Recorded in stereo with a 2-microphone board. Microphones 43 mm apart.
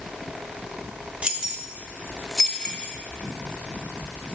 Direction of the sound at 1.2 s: 25° right (ahead or behind).